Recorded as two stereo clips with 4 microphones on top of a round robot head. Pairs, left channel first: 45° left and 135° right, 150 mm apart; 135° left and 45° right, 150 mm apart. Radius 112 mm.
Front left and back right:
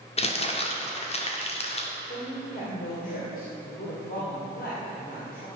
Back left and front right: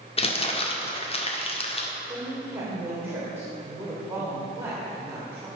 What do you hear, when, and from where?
0.2 s crumpling: 90° left, 2.0 m
2.0 s a woman speaking: 30° left, 3 m